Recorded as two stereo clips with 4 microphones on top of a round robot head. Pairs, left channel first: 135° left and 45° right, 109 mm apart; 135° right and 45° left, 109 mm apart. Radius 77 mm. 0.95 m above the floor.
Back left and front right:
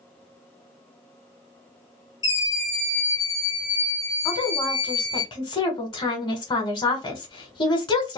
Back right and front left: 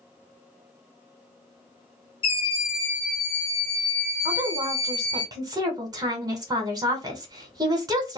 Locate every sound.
2.2 s a scream: 175° right, 1.5 m; by 5.2 s 90° left, 1.1 m
4.2 s a woman speaking: 95° left, 1.3 m